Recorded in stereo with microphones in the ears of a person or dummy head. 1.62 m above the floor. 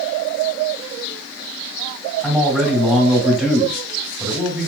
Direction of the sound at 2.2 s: 15° right (ahead or behind).